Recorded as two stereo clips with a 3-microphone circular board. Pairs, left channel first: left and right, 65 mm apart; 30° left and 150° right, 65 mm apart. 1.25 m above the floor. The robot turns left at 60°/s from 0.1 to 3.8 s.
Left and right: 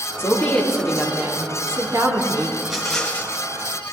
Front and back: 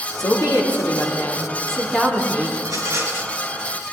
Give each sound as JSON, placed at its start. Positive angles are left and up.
{"t": 0.2, "sound": "a woman speaking", "azimuth_deg": 45, "distance_m": 3.0}
{"t": 2.6, "sound": "a rattle", "azimuth_deg": -165, "distance_m": 3.5}